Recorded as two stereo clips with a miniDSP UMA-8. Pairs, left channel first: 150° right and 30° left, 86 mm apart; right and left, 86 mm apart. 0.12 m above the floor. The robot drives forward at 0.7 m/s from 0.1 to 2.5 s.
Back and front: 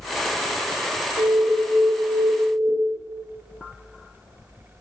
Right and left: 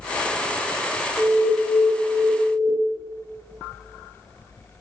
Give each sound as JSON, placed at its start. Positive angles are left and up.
{"t": 1.2, "sound": "an alarm", "azimuth_deg": -30, "distance_m": 2.5}